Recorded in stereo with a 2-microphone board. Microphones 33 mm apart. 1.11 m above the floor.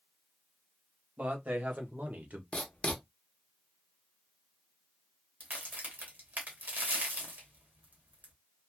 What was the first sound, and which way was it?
A man speaking, 55° right (ahead or behind).